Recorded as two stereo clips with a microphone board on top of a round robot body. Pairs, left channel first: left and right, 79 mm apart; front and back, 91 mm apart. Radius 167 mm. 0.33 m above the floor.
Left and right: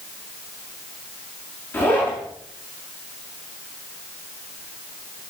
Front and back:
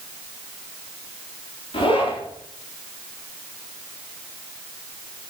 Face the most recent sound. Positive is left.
turn(degrees=25)